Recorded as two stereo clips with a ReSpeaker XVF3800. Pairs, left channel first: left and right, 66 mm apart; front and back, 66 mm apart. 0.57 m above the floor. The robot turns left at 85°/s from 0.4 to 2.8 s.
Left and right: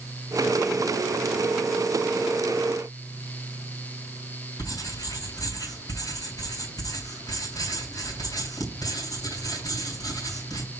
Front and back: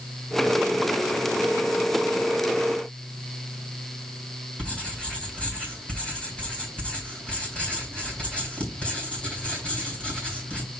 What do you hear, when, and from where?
4.6 s writing: 70° left, 3 m